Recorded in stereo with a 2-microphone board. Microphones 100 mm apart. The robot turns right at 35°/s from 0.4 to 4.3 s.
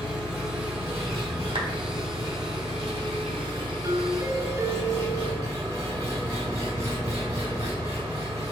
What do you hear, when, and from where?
0.0 s an engine running: 170° right, 1.8 m; by 8.5 s 35° right, 1.8 m
1.6 s a clap: 60° right (ahead or behind), 0.8 m; by 1.7 s 55° right (ahead or behind), 0.8 m
3.8 s a doorbell: 35° right (ahead or behind), 0.5 m; by 5.5 s 25° right (ahead or behind), 0.5 m